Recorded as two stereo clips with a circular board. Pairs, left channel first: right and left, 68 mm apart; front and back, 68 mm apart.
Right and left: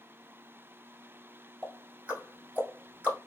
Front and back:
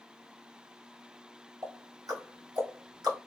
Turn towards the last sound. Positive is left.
turn(degrees=155)